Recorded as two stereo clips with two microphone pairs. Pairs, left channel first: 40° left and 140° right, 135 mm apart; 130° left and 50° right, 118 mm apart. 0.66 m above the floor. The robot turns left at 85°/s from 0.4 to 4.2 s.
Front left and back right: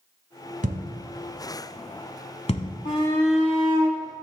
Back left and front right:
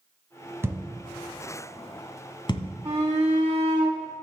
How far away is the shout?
About 1.6 m.